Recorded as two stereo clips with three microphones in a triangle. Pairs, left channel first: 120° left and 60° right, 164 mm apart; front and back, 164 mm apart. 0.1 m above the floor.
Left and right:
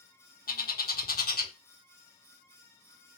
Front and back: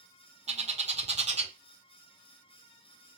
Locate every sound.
0.5 s a bird: 135° left, 0.7 m